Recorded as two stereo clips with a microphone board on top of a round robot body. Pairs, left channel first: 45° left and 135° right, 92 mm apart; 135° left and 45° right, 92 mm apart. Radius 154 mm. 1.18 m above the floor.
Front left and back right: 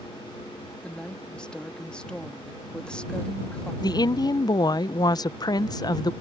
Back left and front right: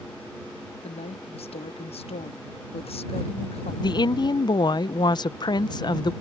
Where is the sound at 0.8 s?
125° left.